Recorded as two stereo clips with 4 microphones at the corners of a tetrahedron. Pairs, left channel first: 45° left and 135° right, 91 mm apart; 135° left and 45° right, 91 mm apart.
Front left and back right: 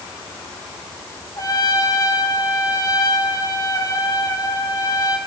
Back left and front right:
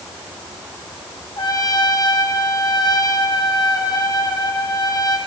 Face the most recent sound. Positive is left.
turn(degrees=95)